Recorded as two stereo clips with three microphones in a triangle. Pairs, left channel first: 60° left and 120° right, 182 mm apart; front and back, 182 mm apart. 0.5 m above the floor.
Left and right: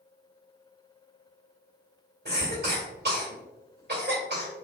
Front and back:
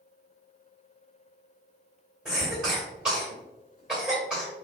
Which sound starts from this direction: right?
A cough, at 2.2 s.